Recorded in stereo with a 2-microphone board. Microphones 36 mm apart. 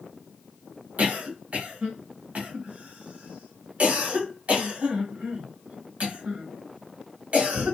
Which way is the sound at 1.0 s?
40° right (ahead or behind).